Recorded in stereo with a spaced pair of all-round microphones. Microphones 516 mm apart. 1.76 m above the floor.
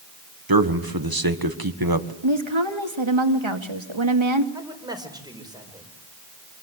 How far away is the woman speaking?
About 2.5 m.